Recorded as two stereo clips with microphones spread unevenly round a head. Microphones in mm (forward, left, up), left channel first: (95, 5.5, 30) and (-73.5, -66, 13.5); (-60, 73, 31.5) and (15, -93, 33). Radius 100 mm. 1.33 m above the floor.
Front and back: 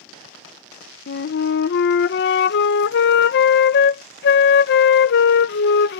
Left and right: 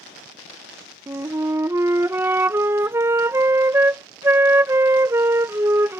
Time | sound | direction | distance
1.1 | a flute | 10° left | ?